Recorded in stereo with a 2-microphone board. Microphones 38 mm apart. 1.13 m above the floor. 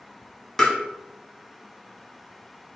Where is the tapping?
10° left (ahead or behind), 1.0 m.